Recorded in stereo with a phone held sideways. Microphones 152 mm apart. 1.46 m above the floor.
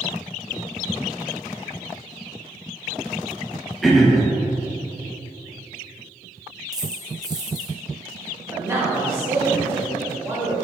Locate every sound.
3.8 s throat clearing: centre (ahead or behind), 1.0 m
6.7 s a dropped coin: 25° right (ahead or behind), 1.1 m
8.5 s a man speaking: 15° right (ahead or behind), 1.6 m